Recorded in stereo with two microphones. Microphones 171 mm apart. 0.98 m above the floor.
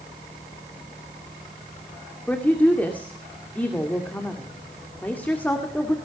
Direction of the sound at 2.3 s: 10° left (ahead or behind).